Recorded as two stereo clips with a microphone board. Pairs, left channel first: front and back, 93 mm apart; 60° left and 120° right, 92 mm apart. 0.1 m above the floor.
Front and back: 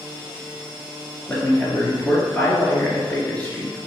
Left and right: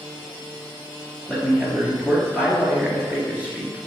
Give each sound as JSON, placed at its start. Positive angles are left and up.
{"t": 1.3, "sound": "a man speaking", "azimuth_deg": -60, "distance_m": 1.9}